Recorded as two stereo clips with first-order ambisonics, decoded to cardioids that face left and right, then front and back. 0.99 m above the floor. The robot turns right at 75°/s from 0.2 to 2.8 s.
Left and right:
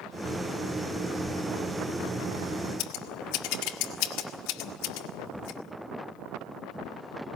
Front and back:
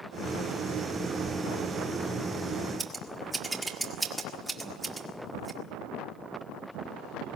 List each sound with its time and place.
2.8 s scissors: 95° left, 1.7 m; by 5.6 s 100° left, 1.7 m